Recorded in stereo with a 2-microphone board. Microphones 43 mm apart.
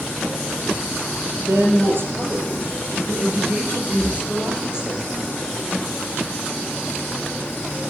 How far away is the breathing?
About 3 m.